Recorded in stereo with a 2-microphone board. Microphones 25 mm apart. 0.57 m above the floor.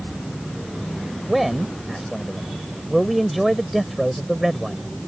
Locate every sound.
1.3 s a man speaking: centre (ahead or behind)